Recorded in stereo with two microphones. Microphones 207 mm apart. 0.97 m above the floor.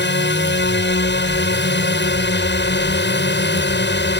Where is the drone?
60° left (ahead or behind).